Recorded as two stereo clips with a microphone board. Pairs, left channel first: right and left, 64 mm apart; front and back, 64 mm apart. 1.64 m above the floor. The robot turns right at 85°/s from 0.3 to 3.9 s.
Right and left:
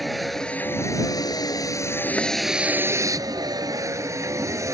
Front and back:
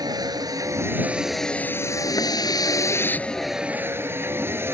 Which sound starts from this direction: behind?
A vehicle, at 0.0 s.